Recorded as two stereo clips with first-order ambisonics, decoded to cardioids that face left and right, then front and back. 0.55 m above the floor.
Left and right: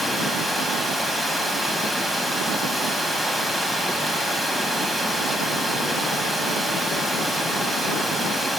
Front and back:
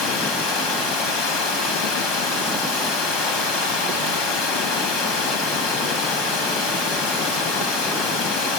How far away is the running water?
About 2.5 m.